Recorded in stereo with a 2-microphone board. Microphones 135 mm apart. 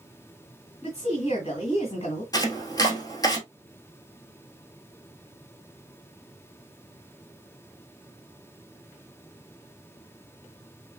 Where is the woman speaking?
45° left (ahead or behind), 2.0 m.